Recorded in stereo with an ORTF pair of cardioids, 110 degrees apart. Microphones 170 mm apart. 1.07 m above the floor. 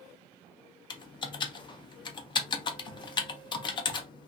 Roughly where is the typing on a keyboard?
Ahead left.